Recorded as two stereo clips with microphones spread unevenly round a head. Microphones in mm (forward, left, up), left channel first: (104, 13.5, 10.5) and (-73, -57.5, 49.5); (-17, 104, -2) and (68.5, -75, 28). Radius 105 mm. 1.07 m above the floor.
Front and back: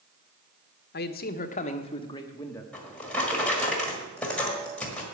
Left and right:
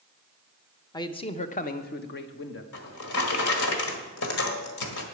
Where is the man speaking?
50° left, 0.9 m; by 2.6 s 100° left, 1.1 m.